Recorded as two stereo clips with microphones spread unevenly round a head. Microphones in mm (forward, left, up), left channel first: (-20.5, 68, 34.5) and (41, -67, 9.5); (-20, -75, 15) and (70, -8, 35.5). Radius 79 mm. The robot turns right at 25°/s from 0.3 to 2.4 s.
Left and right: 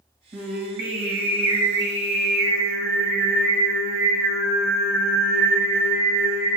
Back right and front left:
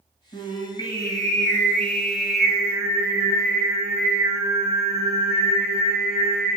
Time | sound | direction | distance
0.3 | singing | 100° right | 1.8 m